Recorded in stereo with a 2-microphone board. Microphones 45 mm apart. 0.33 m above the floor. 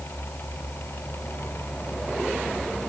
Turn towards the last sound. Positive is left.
No sound to turn to.